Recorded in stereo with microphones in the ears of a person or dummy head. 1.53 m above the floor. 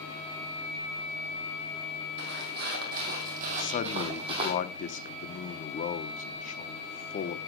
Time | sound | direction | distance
2.2 | footsteps | 50° right (ahead or behind) | 2.5 m
3.6 | a man speaking | 40° left (ahead or behind) | 0.8 m